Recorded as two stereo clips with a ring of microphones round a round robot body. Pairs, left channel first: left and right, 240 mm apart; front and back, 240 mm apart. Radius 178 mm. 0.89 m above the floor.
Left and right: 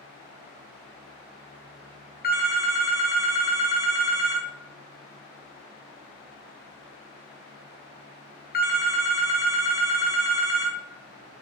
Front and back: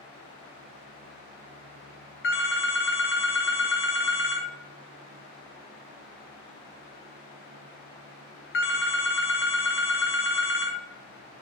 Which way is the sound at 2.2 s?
40° left.